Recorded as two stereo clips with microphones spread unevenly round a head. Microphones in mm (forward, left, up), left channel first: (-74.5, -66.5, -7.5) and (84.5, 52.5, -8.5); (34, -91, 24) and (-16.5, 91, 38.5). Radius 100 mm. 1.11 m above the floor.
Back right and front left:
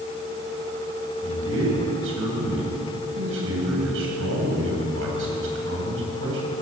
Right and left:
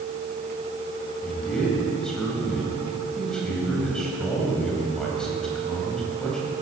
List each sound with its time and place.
1.2 s a man speaking: 15° left, 8.5 m